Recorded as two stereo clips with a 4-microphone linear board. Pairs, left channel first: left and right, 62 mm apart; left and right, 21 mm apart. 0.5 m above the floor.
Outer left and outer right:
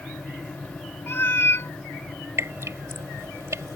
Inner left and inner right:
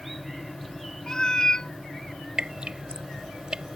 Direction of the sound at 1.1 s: 40° left (ahead or behind).